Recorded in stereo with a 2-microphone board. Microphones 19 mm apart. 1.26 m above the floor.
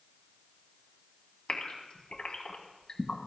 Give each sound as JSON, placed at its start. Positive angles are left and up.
{"t": 1.5, "sound": "a gasp", "side_deg": 65, "distance_m": 2.0}